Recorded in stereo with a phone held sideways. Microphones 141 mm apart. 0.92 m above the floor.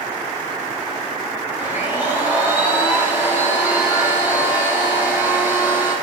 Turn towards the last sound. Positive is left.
turn(degrees=-15)  # may be behind; listen again after turning